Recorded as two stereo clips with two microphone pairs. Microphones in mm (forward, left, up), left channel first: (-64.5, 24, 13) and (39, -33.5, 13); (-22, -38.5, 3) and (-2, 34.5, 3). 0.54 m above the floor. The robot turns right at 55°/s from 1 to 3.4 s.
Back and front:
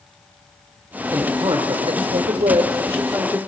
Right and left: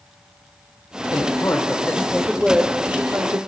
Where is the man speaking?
85° right, 2.5 m; by 3.4 s 40° left, 2.5 m.